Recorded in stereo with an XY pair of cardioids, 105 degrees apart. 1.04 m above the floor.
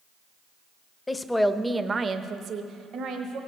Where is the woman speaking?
20° left, 0.6 m; by 3.4 s 75° right, 1.3 m.